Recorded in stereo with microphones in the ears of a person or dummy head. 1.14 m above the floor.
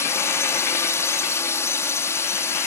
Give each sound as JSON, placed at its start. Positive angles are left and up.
{"t": 0.0, "sound": "a drone", "side_deg": 15}